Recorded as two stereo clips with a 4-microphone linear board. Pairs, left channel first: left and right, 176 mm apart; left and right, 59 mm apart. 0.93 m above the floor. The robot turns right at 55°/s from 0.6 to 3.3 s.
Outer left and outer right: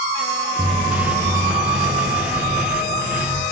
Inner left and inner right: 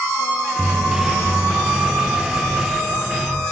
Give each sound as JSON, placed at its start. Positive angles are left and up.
{"t": 0.6, "sound": "footsteps", "side_deg": -40, "distance_m": 1.3}